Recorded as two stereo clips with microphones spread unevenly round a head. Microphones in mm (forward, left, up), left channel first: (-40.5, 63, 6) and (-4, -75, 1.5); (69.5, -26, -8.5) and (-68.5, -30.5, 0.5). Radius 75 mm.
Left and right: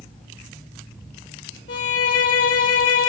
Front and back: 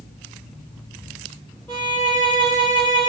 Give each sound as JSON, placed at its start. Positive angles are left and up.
{"t": 1.7, "sound": "a violin", "azimuth_deg": 85, "distance_m": 3.5}